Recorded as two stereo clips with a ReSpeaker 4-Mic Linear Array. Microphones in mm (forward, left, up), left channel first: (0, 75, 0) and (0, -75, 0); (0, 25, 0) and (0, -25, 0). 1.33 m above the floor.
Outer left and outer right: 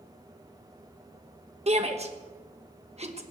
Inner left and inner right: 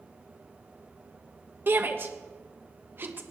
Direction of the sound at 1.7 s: 45° right (ahead or behind).